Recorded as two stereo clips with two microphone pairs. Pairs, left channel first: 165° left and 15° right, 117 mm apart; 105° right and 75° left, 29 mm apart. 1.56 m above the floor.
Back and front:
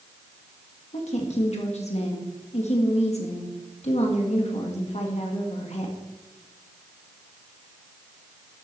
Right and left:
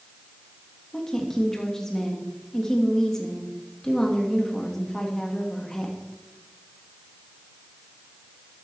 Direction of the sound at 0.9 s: Straight behind.